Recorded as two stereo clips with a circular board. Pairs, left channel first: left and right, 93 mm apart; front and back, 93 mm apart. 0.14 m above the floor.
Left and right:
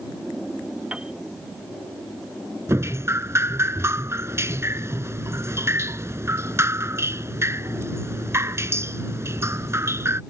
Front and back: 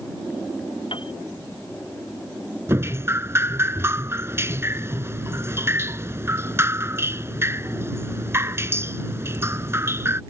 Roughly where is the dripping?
Behind right.